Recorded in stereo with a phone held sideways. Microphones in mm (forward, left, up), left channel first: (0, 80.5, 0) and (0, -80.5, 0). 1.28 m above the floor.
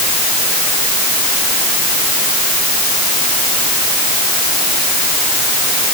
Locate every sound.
Only background noise.